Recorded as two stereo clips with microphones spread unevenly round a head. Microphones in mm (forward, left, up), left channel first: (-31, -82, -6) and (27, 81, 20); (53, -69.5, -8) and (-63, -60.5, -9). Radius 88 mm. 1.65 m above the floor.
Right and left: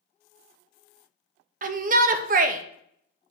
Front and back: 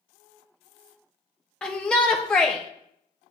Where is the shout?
80° left, 0.6 m.